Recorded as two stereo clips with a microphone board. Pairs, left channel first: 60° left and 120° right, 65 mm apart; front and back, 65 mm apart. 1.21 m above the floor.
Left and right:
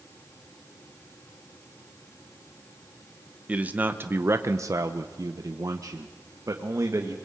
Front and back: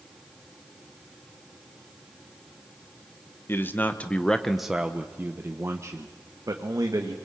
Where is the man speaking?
50° right, 1.3 m; by 7.2 s 160° right, 2 m.